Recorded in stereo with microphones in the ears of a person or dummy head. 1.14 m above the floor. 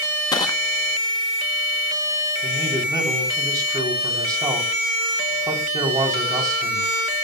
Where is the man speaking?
20° right (ahead or behind), 3.5 m.